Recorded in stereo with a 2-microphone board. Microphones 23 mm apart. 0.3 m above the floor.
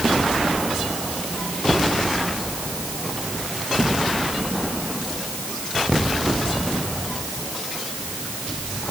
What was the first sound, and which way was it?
Only background noise.